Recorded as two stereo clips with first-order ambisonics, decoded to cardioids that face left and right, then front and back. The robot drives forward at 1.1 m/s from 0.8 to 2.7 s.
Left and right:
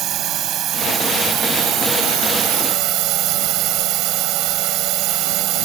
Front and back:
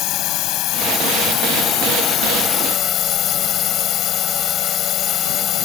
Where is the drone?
40° right; by 5.7 s 55° right.